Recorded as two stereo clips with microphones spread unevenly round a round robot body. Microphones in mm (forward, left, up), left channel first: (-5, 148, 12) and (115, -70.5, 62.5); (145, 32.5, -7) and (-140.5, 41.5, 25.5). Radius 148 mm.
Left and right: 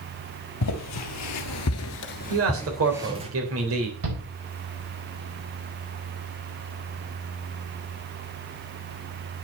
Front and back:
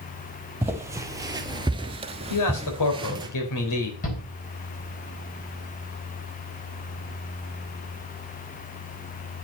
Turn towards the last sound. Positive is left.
turn(degrees=-65)